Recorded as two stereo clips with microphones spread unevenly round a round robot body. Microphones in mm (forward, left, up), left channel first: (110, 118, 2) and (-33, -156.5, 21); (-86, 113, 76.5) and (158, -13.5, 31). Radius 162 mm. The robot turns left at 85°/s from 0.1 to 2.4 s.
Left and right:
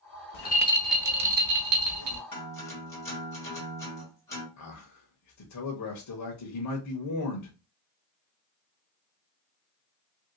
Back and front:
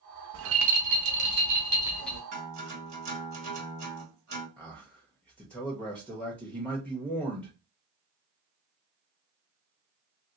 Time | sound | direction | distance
0.3 | a rattle | 15° left | 0.7 m
2.3 | a guitar | 10° right | 2 m
4.6 | a man speaking | 60° left | 0.9 m